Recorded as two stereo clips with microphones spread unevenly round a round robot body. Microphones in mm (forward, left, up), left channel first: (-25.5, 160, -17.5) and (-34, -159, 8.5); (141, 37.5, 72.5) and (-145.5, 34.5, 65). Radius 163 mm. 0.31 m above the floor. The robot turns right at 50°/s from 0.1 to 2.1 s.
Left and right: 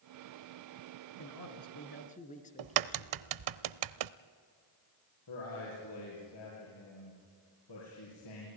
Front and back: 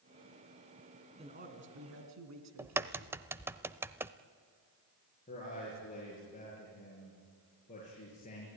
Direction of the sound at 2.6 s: 100° right.